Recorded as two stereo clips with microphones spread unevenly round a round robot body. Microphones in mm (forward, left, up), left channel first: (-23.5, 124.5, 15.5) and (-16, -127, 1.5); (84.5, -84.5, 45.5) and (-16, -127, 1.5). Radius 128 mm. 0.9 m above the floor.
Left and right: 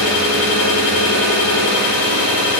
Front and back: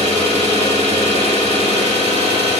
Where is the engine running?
100° left, 5 m.